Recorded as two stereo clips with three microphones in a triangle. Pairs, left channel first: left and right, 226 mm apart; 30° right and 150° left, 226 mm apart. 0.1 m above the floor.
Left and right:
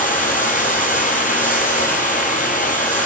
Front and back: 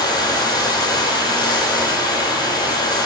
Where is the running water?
40° left, 1.3 m.